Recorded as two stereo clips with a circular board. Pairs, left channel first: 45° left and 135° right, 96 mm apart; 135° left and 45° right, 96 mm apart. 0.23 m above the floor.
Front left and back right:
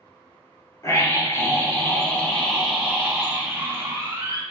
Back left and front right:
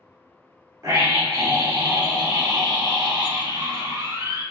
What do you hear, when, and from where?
0.8 s a scream: straight ahead, 1.9 m; by 4.4 s 85° right, 2 m